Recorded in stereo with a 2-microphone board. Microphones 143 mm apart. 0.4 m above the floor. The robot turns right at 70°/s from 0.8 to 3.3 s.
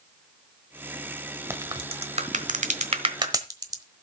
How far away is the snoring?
I don't hear snoring.